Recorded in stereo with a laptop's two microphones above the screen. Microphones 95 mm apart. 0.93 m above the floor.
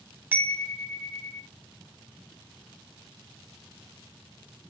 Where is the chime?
20° right (ahead or behind), 0.8 m.